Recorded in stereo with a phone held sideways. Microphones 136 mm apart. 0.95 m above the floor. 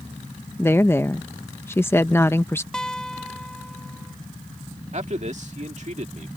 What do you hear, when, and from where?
0.6 s a woman speaking: 20° left (ahead or behind)
2.7 s a guitar: 5° left (ahead or behind)
4.9 s a man speaking: 55° right (ahead or behind)